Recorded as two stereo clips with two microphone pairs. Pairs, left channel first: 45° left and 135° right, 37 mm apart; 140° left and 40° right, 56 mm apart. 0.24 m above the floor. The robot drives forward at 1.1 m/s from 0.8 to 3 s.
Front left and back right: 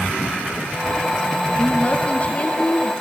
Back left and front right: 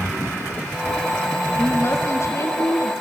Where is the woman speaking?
95° left, 4.5 m; by 2.9 s 110° left, 4.5 m.